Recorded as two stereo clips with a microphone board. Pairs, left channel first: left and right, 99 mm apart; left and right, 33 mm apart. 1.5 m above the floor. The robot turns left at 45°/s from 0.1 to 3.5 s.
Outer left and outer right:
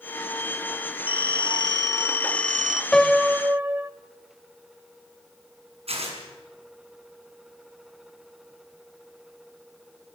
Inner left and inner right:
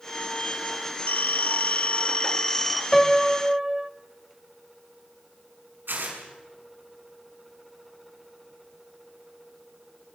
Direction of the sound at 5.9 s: 80° right.